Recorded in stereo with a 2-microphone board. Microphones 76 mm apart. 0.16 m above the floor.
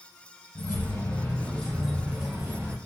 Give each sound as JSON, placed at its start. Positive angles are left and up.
{"t": 0.6, "sound": "keys jangling", "side_deg": 45, "distance_m": 1.6}